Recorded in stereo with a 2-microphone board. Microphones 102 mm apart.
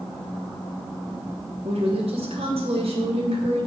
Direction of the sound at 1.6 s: 75° right (ahead or behind).